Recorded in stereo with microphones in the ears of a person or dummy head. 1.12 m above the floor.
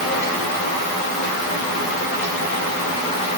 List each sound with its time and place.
Only background noise.